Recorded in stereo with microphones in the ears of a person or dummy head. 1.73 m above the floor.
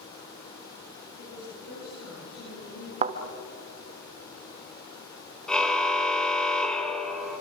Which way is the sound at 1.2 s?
55° left (ahead or behind).